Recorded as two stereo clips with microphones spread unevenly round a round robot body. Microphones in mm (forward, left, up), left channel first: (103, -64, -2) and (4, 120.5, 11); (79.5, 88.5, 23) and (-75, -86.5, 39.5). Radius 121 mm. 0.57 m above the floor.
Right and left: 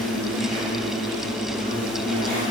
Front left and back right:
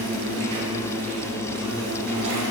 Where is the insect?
155° right, 2 m.